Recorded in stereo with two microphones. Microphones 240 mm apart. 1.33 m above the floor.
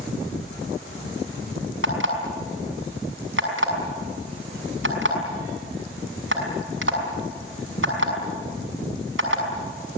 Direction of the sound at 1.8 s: 65° right (ahead or behind).